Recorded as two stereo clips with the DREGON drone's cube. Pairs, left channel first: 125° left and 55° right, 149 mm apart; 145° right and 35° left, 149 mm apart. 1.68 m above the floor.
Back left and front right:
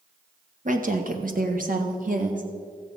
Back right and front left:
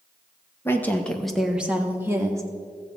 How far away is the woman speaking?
About 1.2 m.